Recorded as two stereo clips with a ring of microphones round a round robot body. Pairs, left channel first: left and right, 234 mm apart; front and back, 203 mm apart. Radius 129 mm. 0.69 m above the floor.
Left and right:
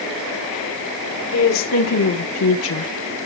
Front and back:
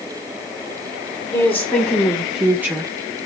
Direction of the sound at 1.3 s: 75° left.